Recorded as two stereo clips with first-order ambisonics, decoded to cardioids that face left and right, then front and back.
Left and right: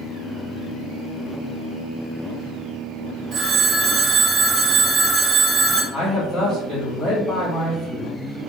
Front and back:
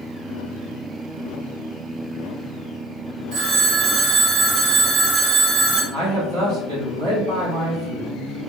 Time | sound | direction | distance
3.3 | a phone ringing | 150° right | 1.1 m
5.9 | a man speaking | 165° left | 1.6 m